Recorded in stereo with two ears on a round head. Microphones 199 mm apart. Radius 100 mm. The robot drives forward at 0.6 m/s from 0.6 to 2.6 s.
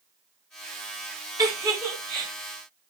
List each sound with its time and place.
1.4 s a giggle: 15° right (ahead or behind), 1.4 m; by 2.3 s 10° right (ahead or behind), 1.8 m